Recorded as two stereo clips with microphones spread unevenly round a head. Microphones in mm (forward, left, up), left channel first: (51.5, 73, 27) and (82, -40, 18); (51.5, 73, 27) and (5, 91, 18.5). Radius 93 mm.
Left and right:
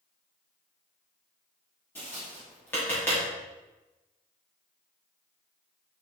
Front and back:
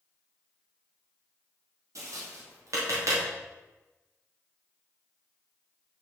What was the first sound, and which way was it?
Tapping, 175° right.